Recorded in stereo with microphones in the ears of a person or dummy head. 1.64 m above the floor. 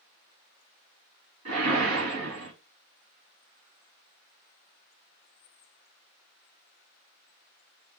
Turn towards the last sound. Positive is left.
turn(degrees=-80)